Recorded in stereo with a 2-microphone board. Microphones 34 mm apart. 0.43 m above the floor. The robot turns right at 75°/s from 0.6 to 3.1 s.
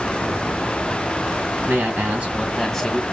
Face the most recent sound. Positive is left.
turn(degrees=30)